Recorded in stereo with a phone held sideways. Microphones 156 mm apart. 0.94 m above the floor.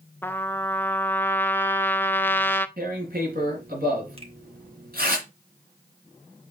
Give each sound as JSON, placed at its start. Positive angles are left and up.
{"t": 0.2, "sound": "a trumpet", "side_deg": 15, "distance_m": 0.5}
{"t": 2.8, "sound": "tearing paper", "side_deg": -75, "distance_m": 3.0}
{"t": 4.2, "sound": "a finger snap", "side_deg": -40, "distance_m": 1.6}